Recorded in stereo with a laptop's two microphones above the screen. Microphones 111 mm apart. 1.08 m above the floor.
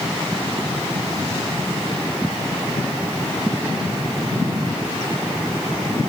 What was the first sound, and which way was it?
Only background noise.